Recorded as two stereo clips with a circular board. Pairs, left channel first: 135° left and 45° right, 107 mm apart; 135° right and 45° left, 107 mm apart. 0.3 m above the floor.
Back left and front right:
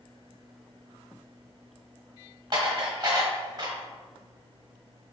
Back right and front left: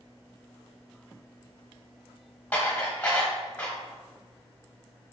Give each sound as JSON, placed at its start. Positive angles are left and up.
{"t": 2.5, "sound": "dishes clattering", "azimuth_deg": -60, "distance_m": 1.1}